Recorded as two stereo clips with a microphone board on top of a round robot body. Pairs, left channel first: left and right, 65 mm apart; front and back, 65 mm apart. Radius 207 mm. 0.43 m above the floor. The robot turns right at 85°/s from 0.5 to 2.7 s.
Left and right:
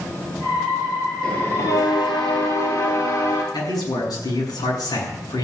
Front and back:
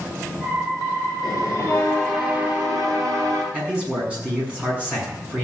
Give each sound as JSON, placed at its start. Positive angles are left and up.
{"t": 1.2, "sound": "a bell", "azimuth_deg": 5, "distance_m": 5.5}
{"t": 3.5, "sound": "a man speaking", "azimuth_deg": 105, "distance_m": 7.0}